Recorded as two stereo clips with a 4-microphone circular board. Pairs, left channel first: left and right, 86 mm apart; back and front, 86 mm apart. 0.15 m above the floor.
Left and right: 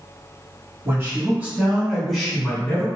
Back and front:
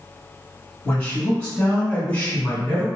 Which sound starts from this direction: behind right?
A man speaking, at 0.8 s.